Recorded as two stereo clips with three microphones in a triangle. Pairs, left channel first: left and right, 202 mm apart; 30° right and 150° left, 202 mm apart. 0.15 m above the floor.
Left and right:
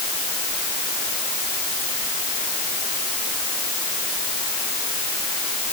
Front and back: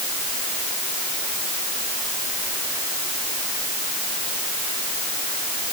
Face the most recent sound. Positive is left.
No sound to turn to.